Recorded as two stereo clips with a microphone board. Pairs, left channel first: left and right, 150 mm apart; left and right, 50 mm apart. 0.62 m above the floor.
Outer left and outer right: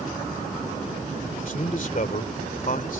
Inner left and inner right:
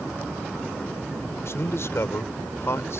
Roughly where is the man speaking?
Left.